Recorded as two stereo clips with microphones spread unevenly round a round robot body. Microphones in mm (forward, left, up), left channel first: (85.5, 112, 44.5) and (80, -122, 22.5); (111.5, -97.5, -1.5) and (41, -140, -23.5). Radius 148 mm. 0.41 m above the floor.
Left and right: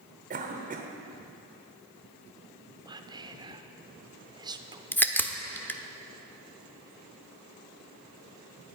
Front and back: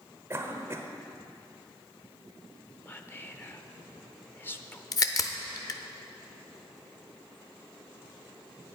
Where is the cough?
125° right, 1.2 m.